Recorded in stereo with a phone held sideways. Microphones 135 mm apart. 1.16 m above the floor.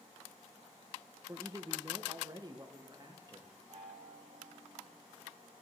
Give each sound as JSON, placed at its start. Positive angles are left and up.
{"t": 1.3, "sound": "a man speaking", "side_deg": -20, "distance_m": 0.6}
{"t": 3.7, "sound": "a chime", "side_deg": -45, "distance_m": 6.0}